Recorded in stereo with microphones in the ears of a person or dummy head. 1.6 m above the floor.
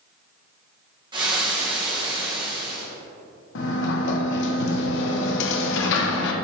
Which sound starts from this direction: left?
A sliding door, at 3.5 s.